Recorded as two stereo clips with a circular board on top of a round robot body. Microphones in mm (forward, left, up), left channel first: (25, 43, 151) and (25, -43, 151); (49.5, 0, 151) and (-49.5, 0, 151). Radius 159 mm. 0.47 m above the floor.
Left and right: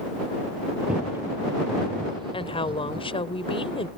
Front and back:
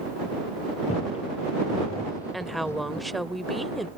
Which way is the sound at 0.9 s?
10° right.